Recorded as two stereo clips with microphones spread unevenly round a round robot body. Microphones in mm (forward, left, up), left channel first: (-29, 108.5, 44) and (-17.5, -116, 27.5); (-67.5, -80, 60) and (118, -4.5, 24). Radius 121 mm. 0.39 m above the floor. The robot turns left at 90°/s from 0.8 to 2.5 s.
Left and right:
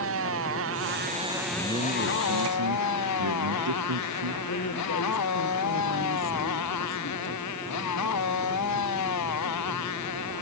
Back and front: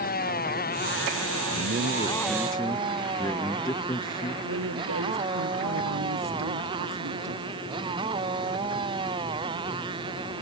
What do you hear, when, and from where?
0.0 s a motorcycle: 115° right; by 10.4 s 95° left
1.5 s a man speaking: 5° left; by 4.3 s 85° right
4.4 s a woman speaking: 50° left